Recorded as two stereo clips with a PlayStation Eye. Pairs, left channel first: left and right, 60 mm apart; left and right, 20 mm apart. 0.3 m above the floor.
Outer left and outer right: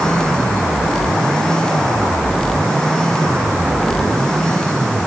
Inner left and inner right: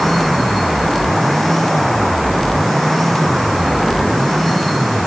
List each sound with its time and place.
Only background noise.